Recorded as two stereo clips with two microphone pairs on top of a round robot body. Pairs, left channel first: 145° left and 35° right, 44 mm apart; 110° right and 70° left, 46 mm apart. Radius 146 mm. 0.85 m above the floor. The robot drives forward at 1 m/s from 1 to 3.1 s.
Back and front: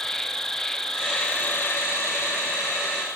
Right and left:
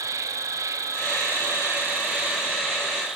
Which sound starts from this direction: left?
An insect, at 0.0 s.